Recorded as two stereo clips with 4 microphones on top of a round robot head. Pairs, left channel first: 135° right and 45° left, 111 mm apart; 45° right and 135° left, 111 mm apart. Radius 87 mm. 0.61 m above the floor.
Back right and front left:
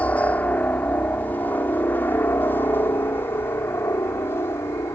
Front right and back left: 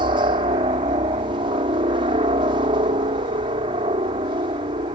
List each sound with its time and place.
0.0 s a helicopter: 150° left; by 5.0 s 160° left